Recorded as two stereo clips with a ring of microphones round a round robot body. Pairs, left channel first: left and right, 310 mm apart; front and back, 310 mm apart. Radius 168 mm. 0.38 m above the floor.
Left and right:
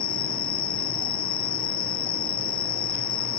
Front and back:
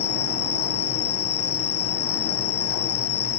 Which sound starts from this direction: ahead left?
An insect, at 0.0 s.